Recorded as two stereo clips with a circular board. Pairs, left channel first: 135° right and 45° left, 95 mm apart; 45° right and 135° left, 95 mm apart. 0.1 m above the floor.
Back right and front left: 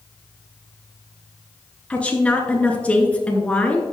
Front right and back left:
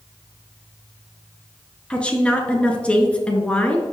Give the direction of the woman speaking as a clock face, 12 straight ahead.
3 o'clock.